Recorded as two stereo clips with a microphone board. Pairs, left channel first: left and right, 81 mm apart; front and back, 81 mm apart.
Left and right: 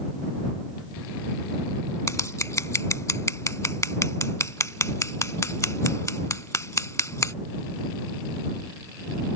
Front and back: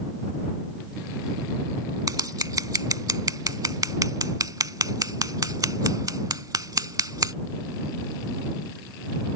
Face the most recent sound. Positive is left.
turn(degrees=140)